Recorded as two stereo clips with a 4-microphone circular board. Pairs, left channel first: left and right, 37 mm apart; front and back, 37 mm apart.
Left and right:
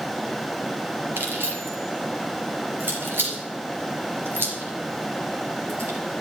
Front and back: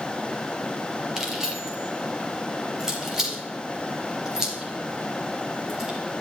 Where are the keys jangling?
105° right, 3 m.